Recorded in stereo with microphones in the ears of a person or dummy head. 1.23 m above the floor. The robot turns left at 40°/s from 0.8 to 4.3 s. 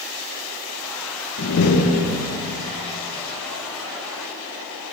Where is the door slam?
65° left, 0.8 m; by 2.3 s 25° left, 0.8 m.